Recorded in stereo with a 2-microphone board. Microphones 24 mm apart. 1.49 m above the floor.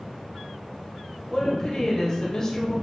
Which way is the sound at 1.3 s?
25° left (ahead or behind).